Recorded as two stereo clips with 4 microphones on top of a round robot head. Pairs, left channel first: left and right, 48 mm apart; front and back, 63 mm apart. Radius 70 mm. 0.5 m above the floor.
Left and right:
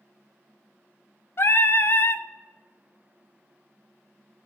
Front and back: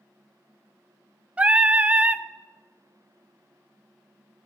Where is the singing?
115° left, 0.6 m.